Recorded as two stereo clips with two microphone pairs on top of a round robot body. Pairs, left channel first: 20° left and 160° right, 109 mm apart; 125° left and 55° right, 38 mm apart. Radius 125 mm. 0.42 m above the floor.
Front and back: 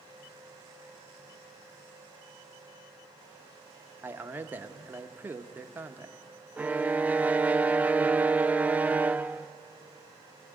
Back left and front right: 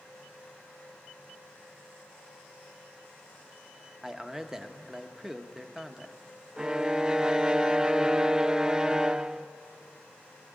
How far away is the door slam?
I don't hear a door slam.